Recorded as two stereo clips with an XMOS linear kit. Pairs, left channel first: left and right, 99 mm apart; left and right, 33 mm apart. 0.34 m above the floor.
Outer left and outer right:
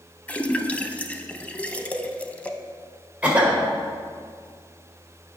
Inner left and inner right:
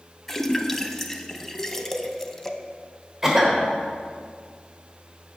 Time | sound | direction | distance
0.3 | a splash | 15° left (ahead or behind) | 0.5 m
3.2 | a cough | 15° right (ahead or behind) | 1.5 m